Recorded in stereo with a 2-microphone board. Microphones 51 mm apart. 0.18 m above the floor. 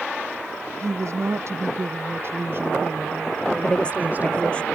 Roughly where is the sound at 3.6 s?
Left.